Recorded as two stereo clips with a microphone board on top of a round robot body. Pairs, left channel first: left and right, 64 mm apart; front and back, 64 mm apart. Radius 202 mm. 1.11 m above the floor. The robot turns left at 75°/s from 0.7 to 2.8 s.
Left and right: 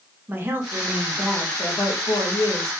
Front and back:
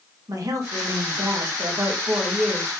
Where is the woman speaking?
150° right, 2 m; by 2.7 s 60° left, 2 m.